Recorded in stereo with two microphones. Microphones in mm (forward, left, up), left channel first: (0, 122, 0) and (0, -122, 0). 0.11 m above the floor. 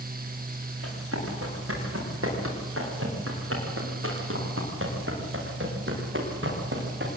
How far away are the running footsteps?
About 10 m.